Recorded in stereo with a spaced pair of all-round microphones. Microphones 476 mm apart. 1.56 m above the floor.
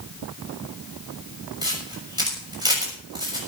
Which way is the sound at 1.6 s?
10° right (ahead or behind).